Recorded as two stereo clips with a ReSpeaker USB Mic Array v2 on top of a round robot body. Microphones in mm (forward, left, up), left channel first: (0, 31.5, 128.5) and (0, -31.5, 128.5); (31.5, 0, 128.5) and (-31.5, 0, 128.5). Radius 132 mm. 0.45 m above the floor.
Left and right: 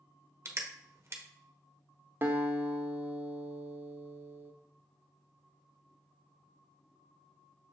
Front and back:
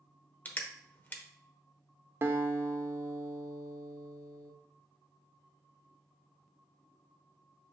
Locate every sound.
0.5 s crushing: 55° right, 1.0 m
2.2 s a guitar: 140° right, 0.9 m